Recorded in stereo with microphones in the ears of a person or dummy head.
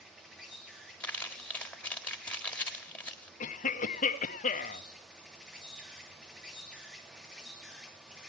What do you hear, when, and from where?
0.0 s an insect: centre (ahead or behind), 3 m
1.0 s crumpling: 10° left (ahead or behind), 1.7 m
3.4 s a cough: 40° left (ahead or behind), 1.0 m